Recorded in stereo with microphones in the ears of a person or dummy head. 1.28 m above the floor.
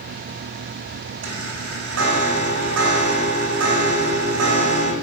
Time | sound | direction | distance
1.2 | a chime | 85° right | 3 m